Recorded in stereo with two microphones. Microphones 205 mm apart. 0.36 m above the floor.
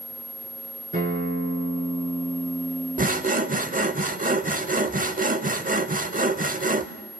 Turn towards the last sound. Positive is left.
turn(degrees=-40)  # may be behind; listen again after turning